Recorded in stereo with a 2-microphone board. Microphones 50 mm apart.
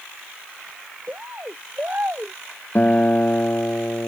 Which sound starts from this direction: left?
A guitar, at 2.8 s.